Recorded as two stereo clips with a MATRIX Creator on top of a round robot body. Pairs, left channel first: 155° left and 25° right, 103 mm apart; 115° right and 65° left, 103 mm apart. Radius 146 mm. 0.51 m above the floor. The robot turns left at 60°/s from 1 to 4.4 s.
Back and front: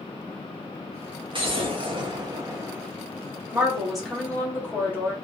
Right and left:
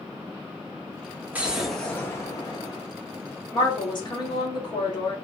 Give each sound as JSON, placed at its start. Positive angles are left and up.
{"t": 1.3, "sound": "an explosion", "azimuth_deg": -5, "distance_m": 1.1}
{"t": 3.5, "sound": "a woman speaking", "azimuth_deg": -85, "distance_m": 1.4}